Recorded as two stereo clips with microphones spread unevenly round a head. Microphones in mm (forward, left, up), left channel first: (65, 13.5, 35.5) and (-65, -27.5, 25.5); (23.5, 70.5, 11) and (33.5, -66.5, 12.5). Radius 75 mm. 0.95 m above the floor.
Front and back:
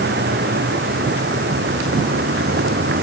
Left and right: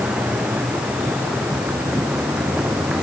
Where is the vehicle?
170° right.